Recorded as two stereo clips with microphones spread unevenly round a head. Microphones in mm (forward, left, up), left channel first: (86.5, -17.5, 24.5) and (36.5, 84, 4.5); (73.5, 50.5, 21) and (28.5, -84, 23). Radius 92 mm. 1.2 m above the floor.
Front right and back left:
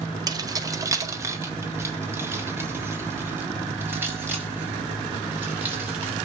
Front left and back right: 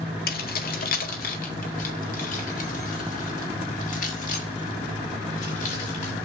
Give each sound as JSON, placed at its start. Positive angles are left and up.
{"t": 0.3, "sound": "keys jangling", "azimuth_deg": 60, "distance_m": 1.6}